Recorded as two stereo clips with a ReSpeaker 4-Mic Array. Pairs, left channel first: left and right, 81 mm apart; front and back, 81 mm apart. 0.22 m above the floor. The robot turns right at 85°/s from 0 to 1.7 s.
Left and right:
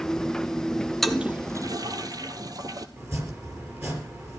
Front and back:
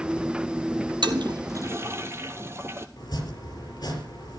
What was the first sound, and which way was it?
A toilet flushing, straight behind.